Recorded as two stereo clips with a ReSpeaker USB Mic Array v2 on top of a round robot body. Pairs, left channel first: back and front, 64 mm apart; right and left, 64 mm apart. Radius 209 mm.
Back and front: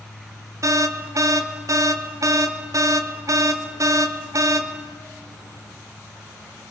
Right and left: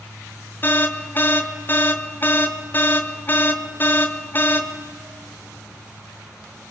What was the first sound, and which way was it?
An alarm, 30° right.